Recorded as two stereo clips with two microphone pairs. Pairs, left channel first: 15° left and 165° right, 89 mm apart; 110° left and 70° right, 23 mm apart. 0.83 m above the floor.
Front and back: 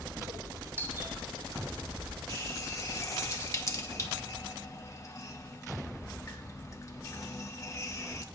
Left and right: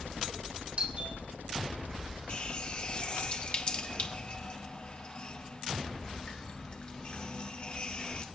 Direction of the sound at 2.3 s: 70° left.